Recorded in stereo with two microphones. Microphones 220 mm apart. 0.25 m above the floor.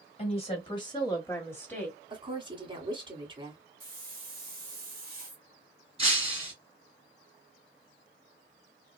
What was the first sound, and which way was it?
A woman speaking, 30° left (ahead or behind).